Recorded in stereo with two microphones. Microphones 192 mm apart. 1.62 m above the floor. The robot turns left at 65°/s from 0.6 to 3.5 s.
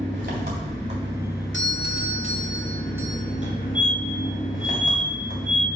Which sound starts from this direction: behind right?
An engine running, at 0.0 s.